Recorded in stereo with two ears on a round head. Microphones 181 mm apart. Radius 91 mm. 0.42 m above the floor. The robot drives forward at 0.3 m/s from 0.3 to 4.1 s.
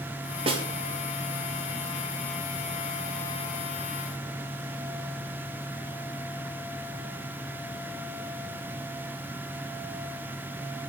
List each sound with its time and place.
0.5 s a snare drum: 30° right (ahead or behind), 1.4 m